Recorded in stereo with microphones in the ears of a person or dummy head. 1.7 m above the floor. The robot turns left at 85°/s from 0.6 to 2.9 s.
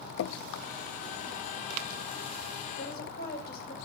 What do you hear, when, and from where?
0.2 s dripping: 65° left (ahead or behind), 0.5 m
2.8 s a woman speaking: 60° left (ahead or behind), 6.5 m; by 3.8 s 45° left (ahead or behind), 6.5 m